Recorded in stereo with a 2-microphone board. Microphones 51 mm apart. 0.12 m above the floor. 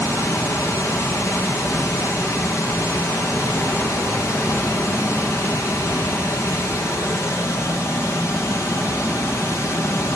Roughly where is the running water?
Left.